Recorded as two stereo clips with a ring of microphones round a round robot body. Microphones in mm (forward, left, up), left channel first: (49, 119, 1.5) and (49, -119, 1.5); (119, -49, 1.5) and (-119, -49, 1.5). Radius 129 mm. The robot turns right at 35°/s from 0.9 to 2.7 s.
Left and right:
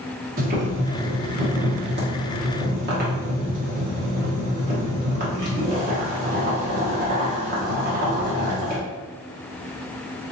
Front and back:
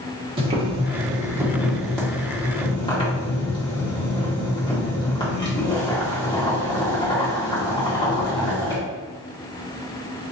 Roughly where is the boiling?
Behind right.